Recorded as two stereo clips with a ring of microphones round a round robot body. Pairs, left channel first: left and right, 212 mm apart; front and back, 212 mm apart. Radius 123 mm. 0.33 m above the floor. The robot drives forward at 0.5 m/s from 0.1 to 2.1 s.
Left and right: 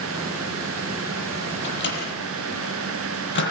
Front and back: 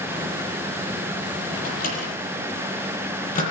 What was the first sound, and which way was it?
A microwave, 55° left.